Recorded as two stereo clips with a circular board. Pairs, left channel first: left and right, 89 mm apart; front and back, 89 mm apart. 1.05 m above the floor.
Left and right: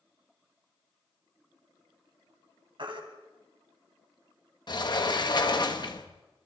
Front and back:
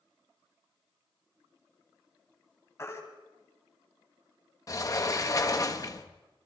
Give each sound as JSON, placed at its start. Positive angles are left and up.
{"t": 2.8, "sound": "a baby crying", "azimuth_deg": -60, "distance_m": 3.5}
{"t": 4.7, "sound": "a sliding door", "azimuth_deg": 50, "distance_m": 1.4}